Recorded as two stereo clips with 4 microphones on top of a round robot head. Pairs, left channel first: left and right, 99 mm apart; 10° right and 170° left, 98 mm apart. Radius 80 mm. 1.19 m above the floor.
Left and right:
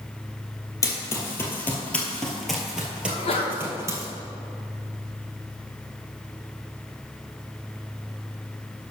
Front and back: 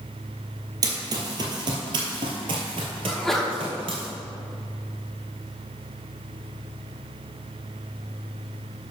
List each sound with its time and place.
0.8 s running footsteps: 135° left, 1.7 m; by 4.0 s 140° right, 1.7 m
3.0 s a sneeze: 80° left, 1.6 m